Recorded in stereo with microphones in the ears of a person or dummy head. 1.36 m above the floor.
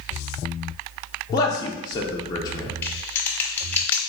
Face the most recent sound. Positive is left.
turn(degrees=10)  # may be behind; listen again after turning